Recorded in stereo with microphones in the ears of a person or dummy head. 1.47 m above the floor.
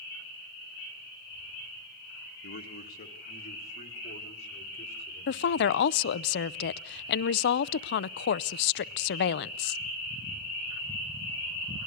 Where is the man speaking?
55° left (ahead or behind), 1.9 m; by 5.8 s 35° left (ahead or behind), 6 m.